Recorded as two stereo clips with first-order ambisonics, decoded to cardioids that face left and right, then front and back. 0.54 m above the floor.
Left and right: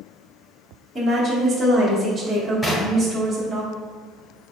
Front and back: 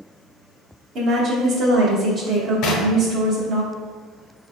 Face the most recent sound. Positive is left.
turn(degrees=20)